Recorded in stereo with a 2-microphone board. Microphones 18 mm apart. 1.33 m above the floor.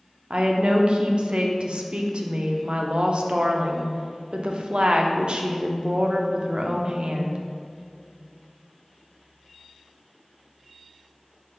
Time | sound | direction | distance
0.3 | a woman speaking | 70° right (ahead or behind) | 0.5 m